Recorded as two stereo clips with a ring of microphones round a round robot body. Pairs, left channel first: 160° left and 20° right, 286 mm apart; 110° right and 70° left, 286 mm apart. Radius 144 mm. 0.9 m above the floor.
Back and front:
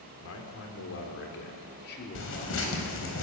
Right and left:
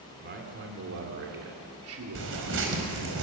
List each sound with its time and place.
0.2 s a man speaking: 120° left, 3 m; by 3.0 s 90° left, 3 m
2.1 s tearing paper: 115° left, 4.5 m